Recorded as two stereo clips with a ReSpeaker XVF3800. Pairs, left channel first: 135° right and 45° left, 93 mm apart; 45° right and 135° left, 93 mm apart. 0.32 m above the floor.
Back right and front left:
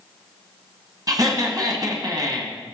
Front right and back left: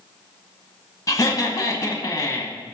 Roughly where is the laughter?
Ahead.